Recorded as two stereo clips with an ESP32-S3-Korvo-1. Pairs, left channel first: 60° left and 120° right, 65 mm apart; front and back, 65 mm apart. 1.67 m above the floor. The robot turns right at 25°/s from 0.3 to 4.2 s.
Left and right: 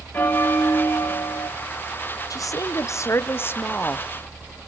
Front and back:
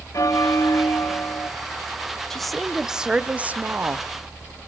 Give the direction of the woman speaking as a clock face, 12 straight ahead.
9 o'clock.